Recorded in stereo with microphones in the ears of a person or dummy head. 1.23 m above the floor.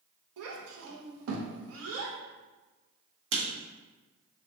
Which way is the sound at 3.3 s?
65° right (ahead or behind).